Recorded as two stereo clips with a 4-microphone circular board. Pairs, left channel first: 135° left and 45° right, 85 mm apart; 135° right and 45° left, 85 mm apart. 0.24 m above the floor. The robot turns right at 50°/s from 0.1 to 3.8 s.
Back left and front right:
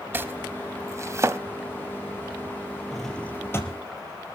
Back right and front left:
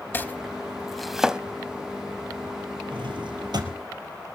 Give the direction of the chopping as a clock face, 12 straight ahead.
3 o'clock.